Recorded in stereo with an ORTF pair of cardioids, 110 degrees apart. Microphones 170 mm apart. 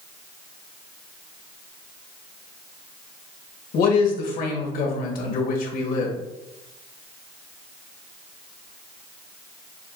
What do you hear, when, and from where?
3.7 s a man speaking: 65° left, 1.4 m